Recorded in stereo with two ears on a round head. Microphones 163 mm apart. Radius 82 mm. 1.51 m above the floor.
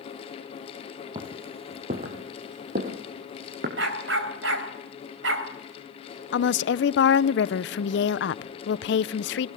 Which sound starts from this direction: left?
A woman speaking, at 6.3 s.